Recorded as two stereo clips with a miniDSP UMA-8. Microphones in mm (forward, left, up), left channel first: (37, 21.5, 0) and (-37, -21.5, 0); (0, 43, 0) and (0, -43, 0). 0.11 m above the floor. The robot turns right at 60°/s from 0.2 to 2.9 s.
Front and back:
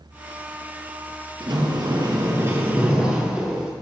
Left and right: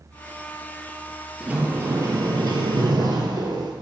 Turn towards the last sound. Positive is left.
turn(degrees=-75)